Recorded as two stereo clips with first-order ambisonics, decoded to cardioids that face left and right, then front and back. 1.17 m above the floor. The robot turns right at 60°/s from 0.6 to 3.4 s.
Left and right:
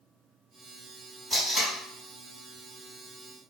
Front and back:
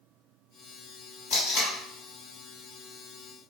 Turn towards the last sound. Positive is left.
turn(degrees=130)